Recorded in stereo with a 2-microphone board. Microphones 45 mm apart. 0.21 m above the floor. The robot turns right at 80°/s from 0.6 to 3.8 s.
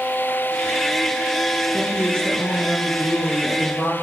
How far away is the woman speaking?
About 3 m.